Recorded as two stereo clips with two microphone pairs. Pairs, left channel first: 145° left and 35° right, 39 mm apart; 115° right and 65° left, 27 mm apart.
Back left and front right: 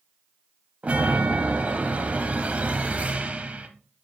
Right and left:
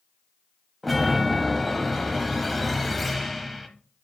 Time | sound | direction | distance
0.8 | a chime | 30° right | 0.9 m